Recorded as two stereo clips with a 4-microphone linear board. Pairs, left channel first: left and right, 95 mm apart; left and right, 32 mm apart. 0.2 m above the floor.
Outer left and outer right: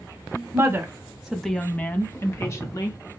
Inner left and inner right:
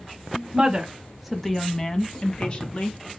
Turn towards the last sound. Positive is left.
turn(degrees=35)  # may be behind; listen again after turning